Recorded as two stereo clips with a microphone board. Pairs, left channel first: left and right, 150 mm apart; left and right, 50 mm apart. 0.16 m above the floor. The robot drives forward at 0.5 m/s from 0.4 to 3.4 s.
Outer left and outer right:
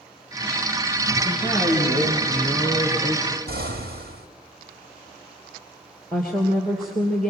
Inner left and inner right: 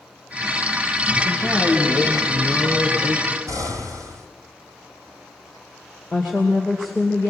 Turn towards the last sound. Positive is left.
turn(degrees=0)  # may be behind; listen again after turning